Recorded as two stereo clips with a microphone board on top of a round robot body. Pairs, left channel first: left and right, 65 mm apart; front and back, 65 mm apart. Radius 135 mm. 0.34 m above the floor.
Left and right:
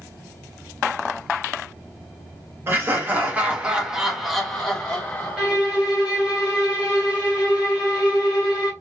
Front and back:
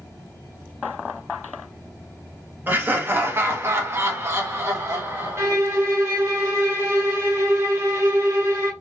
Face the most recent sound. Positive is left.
turn(degrees=-160)